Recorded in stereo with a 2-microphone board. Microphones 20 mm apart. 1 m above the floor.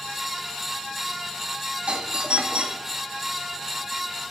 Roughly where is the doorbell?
Right.